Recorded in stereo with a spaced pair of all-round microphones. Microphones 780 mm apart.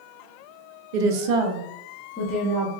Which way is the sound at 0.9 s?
75° right (ahead or behind).